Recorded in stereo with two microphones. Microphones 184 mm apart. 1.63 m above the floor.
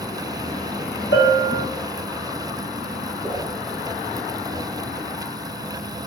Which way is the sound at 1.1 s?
75° left (ahead or behind).